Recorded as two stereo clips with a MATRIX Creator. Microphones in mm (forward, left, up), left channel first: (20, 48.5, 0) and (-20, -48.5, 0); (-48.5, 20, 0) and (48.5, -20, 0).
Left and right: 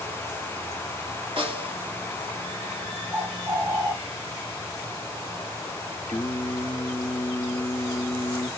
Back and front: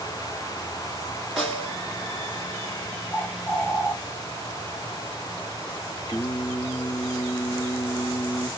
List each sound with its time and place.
1.4 s a snare drum: 110° right, 2 m
3.1 s a bird: 140° right, 1.1 m
6.1 s singing: 150° left, 1.2 m